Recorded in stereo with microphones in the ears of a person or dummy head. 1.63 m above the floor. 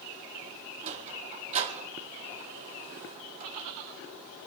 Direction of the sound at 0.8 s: 40° right (ahead or behind).